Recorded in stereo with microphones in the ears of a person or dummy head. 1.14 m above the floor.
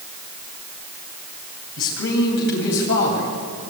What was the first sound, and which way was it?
A man speaking, 65° left (ahead or behind).